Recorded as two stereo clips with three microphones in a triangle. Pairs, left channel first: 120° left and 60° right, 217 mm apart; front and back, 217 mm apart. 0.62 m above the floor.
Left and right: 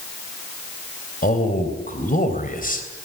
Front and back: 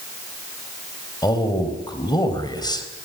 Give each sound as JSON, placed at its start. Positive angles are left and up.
{"t": 1.2, "sound": "a man speaking", "azimuth_deg": 70, "distance_m": 3.0}